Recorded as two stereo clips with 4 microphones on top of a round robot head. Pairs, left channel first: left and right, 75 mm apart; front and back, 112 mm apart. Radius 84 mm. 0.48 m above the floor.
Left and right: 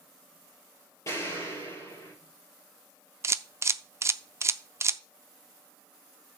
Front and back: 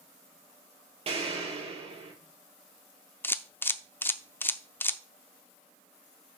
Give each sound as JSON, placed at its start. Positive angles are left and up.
{"t": 1.1, "sound": "an explosion", "azimuth_deg": 150, "distance_m": 6.5}
{"t": 3.2, "sound": "a camera shutter", "azimuth_deg": -60, "distance_m": 0.6}